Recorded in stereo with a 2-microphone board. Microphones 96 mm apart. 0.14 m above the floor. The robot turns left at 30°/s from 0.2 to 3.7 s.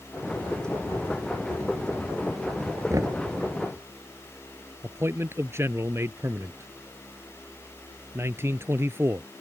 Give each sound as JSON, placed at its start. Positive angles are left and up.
{"t": 2.9, "sound": "knocking", "side_deg": -35}
{"t": 4.8, "sound": "a man speaking", "side_deg": -25}